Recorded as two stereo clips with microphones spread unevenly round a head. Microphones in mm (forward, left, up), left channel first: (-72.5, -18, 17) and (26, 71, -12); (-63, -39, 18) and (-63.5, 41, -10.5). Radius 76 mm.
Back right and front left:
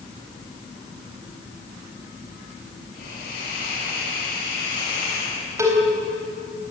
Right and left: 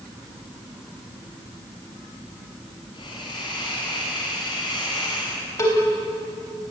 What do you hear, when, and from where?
2.9 s a hiss: 110° right, 8.5 m
5.6 s a cowbell: 35° right, 3.5 m